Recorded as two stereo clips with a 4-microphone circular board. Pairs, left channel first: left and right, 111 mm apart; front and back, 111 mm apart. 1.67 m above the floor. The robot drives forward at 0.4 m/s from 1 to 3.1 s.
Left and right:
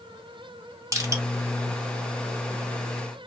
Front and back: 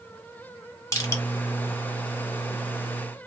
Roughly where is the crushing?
Ahead right.